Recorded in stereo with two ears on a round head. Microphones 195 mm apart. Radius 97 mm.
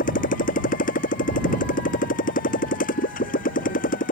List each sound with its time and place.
0.0 s a motorcycle: 40° left (ahead or behind)